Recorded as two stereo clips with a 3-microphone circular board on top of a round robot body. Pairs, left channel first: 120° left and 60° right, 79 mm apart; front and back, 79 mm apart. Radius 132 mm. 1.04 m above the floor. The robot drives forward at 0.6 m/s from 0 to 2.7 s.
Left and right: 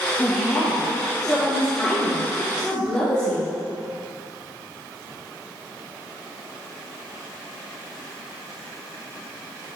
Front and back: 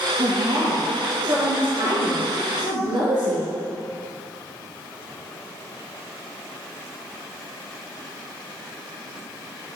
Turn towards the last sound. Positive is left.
turn(degrees=-165)